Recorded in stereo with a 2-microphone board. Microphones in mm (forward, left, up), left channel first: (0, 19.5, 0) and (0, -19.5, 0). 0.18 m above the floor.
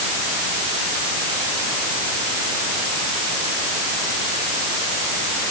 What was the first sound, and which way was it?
Only background noise.